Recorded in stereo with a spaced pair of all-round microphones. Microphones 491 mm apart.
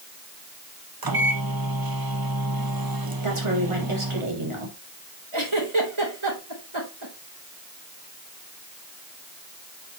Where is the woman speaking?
80° right, 4 m.